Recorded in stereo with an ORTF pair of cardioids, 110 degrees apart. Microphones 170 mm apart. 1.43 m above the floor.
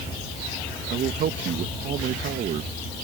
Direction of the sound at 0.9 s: 60° right.